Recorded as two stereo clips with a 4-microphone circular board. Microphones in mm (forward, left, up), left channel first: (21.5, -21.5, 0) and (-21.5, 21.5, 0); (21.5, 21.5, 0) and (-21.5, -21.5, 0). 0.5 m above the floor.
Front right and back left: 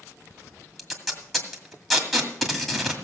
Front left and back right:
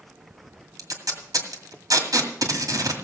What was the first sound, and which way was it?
Tape being pulled, 135° right.